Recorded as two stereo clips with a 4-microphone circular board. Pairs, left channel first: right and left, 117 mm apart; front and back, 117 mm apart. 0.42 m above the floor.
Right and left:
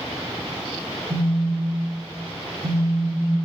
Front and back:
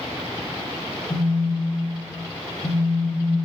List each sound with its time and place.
1.1 s a phone buzzing: 50° left, 0.7 m